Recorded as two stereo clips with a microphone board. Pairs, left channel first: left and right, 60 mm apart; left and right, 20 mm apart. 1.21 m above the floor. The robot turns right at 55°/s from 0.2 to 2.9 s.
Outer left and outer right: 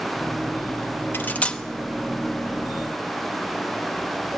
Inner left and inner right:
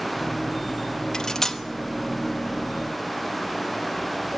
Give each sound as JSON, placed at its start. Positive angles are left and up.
{"t": 1.1, "sound": "cutlery clinking", "side_deg": 35, "distance_m": 0.9}